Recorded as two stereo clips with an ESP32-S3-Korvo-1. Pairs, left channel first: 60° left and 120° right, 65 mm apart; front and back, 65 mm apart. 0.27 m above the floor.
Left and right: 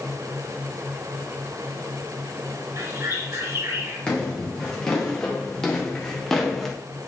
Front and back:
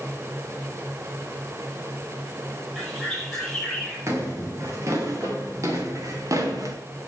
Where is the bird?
90° right, 6 m.